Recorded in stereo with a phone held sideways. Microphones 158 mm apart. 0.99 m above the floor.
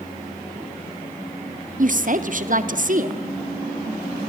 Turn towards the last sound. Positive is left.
turn(degrees=-55)  # may be behind; listen again after turning